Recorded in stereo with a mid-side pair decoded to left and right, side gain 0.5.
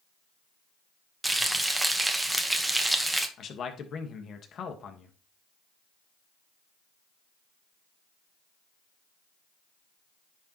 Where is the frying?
10° right, 1.4 m.